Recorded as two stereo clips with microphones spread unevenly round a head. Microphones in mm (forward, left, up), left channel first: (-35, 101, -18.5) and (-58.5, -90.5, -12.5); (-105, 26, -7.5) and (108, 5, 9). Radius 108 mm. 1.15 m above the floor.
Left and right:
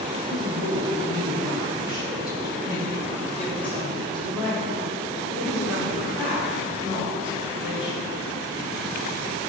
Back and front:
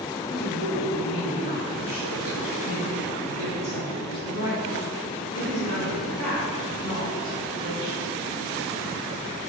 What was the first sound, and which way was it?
A woman speaking, 130° left.